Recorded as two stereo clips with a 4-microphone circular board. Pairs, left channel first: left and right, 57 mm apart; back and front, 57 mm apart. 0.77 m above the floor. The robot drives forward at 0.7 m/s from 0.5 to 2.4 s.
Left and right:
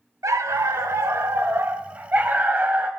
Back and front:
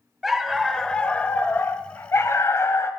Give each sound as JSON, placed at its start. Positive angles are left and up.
{"t": 0.2, "sound": "a dog barking", "azimuth_deg": -85, "distance_m": 0.9}